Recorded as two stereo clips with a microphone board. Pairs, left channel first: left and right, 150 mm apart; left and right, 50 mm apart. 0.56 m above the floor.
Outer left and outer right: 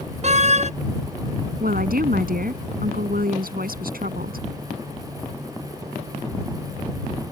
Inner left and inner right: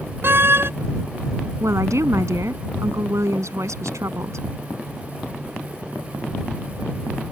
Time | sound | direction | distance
0.2 | a door slam | 50° right (ahead or behind) | ?
1.6 | a woman speaking | 80° right | ?